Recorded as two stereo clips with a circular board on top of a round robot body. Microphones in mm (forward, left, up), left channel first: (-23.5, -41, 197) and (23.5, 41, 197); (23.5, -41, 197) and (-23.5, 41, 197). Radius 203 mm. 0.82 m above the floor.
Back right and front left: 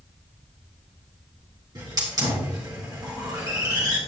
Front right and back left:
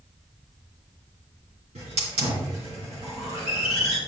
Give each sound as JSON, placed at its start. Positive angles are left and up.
{"t": 1.8, "sound": "a hiss", "azimuth_deg": 115, "distance_m": 3.0}